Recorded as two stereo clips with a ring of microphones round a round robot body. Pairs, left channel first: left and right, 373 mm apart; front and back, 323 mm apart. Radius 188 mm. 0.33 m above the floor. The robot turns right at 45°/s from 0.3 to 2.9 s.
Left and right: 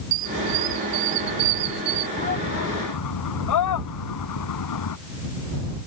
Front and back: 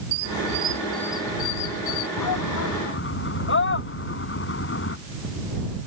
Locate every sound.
0.1 s a squeak: 120° right; by 2.1 s 40° right
2.2 s a shout: 15° left; by 5.0 s 50° left